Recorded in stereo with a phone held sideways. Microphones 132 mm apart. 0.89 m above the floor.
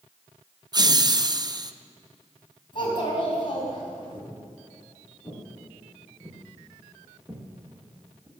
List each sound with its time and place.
0.7 s laughter: 30° right (ahead or behind), 0.6 m
2.7 s a child speaking: 40° left (ahead or behind), 5 m
4.3 s footsteps: 30° left (ahead or behind), 7 m; by 8.3 s 30° right (ahead or behind), 3.5 m